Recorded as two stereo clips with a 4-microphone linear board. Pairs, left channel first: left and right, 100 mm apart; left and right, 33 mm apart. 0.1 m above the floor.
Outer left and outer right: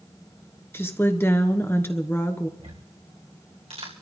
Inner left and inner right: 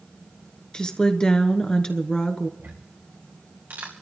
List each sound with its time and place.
0.7 s a woman speaking: 25° left (ahead or behind), 1.2 m
2.6 s ticking: 75° right (ahead or behind), 2.5 m